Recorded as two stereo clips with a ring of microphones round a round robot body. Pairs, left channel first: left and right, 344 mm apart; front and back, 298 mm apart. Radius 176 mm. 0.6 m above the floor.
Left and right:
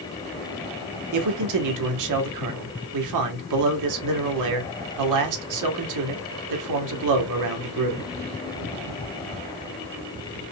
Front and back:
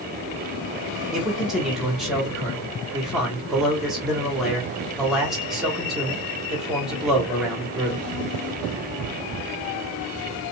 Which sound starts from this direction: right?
A man speaking, at 1.1 s.